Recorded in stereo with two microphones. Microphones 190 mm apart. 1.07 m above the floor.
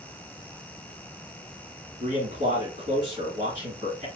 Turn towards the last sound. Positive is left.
turn(degrees=-60)  # may be behind; listen again after turning